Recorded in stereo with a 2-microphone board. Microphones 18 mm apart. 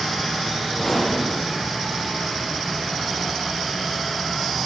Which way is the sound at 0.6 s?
Centre (ahead or behind).